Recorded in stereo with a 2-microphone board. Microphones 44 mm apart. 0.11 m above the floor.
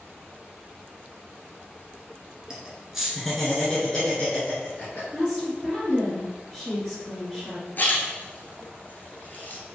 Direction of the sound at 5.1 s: 10° left (ahead or behind).